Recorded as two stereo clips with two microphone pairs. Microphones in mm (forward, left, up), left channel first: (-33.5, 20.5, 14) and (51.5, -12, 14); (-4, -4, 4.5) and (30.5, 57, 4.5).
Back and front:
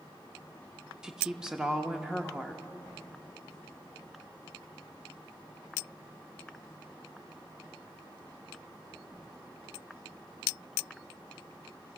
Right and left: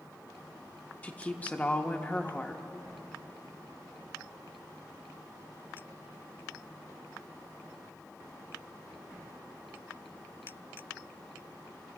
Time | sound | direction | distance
1.0 | a woman speaking | 90° right | 0.8 m